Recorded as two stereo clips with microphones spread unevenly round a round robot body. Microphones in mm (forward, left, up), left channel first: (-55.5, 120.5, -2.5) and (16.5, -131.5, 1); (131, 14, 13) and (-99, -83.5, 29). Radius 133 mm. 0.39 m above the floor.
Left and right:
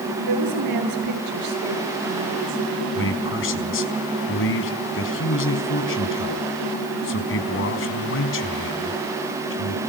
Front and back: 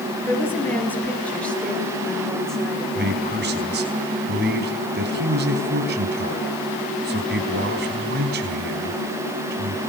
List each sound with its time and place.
0.3 s a woman speaking: 60° right, 7.5 m; by 3.1 s 65° right, 10 m
3.0 s a man speaking: 150° left, 4 m